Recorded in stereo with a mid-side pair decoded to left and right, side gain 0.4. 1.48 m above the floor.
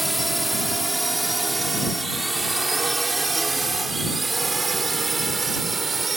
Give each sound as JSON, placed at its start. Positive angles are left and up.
{"t": 0.0, "sound": "a drone", "azimuth_deg": -5}